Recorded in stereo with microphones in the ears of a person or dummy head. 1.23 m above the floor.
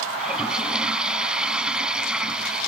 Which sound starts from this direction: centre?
A toilet flushing, at 0.2 s.